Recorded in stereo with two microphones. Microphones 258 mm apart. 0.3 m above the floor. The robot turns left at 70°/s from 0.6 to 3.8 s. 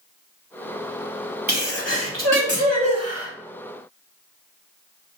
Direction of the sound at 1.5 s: 45° right.